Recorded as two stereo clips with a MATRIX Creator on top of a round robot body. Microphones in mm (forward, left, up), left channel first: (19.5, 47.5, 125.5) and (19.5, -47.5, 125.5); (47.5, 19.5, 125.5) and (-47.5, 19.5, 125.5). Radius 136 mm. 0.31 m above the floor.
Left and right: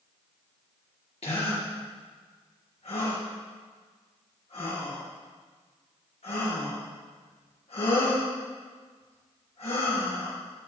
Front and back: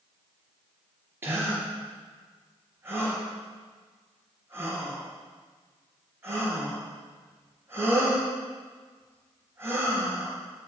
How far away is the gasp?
About 4.5 m.